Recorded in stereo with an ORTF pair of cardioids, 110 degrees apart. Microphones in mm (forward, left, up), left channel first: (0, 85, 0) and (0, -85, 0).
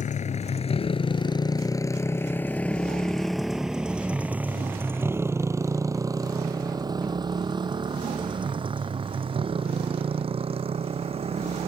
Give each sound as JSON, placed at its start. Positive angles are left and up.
{"t": 0.0, "sound": "a motorcycle", "azimuth_deg": 45}